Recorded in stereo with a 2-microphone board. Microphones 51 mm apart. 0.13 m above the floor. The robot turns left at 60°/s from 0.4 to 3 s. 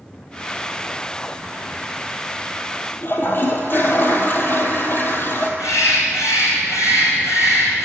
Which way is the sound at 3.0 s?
45° left (ahead or behind).